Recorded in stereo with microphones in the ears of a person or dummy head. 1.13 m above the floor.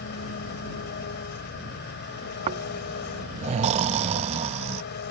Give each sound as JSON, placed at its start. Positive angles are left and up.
{"t": 0.0, "sound": "an engine running", "side_deg": 60}
{"t": 2.5, "sound": "snoring", "side_deg": -35}